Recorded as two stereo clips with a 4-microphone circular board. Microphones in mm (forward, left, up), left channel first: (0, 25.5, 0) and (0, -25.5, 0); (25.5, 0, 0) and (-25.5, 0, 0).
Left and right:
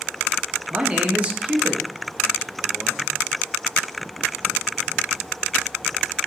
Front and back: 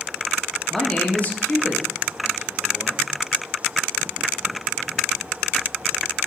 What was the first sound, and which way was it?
A man speaking, 80° right.